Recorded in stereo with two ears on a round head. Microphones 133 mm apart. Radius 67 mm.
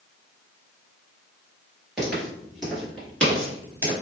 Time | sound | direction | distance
2.0 | footsteps | 5° right (ahead or behind) | 2.0 m